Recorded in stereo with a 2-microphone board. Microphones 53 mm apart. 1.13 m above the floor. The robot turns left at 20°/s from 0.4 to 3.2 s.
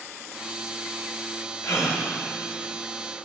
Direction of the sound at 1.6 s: 80° left.